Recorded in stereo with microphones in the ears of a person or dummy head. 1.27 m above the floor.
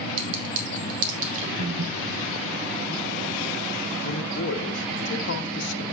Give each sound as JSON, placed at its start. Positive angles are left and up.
{"t": 0.2, "sound": "a clink", "side_deg": -70, "distance_m": 1.6}
{"t": 1.6, "sound": "breathing", "side_deg": -55, "distance_m": 0.8}
{"t": 4.0, "sound": "a man speaking", "side_deg": 65, "distance_m": 1.1}